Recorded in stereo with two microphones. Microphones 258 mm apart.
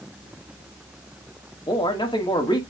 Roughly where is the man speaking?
Centre.